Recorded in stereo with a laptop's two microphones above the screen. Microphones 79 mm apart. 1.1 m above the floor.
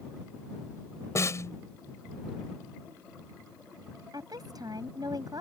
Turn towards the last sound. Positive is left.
turn(degrees=-60)  # may be behind; listen again after turning